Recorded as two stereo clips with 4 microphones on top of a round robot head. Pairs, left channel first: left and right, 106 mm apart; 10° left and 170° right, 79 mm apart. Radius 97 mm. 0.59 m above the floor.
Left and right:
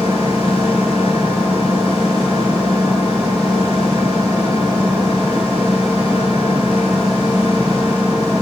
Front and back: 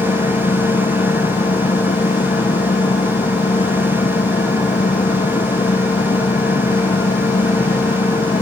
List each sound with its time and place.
0.0 s an engine running: 5° right